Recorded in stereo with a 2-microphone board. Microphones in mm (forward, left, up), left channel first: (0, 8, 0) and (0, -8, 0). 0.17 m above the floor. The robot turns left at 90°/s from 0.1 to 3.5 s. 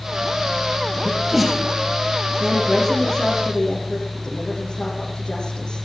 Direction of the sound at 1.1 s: 35° right (ahead or behind).